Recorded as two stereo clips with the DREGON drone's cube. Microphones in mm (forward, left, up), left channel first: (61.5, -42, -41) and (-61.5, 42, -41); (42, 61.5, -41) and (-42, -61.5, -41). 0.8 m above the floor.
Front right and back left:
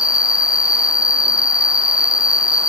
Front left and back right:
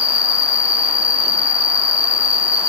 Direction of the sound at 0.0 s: 15° right.